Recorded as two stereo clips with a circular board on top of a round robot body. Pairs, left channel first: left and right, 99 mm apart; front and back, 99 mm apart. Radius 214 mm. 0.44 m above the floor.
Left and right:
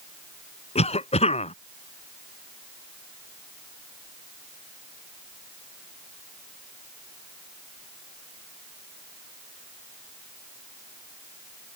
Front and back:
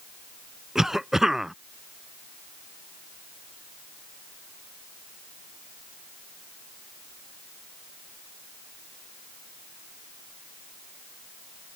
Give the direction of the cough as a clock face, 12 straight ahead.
9 o'clock.